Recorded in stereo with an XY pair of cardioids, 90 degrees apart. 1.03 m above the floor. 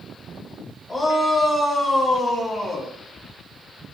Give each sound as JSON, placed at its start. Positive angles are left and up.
{"t": 0.9, "sound": "a shout", "azimuth_deg": 30, "distance_m": 9.5}